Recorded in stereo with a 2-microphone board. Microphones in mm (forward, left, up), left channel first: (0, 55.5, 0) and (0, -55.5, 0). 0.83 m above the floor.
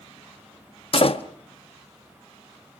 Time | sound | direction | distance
0.9 | a door slam | 55° left (ahead or behind) | 0.8 m